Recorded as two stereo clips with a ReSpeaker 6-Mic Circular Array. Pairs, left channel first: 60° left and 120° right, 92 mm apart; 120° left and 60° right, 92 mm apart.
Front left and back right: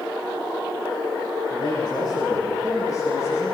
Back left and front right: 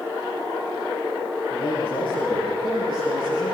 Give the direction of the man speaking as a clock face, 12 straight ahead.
9 o'clock.